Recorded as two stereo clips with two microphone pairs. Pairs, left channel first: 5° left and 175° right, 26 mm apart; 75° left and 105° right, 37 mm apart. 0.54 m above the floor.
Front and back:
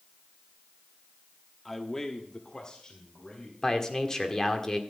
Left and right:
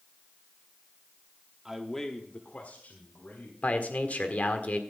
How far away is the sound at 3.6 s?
About 1.5 m.